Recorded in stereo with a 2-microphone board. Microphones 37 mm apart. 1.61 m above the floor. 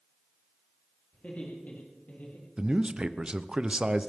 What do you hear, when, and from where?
1.1 s laughter: 40° left (ahead or behind), 3.5 m; by 2.5 s 55° left (ahead or behind), 3 m
2.6 s a man speaking: 25° right (ahead or behind), 0.7 m